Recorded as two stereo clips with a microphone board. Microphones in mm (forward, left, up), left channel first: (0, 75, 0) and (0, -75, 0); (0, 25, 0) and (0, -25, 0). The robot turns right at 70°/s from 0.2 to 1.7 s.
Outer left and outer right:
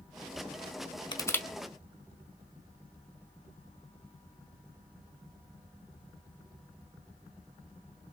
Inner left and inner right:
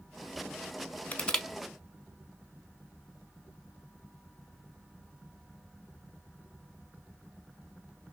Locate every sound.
1.1 s crushing: 30° left (ahead or behind), 0.6 m; by 1.5 s 5° left (ahead or behind), 0.6 m